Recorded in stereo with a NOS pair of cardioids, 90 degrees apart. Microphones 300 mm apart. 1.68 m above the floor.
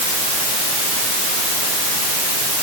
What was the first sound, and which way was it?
Only background noise.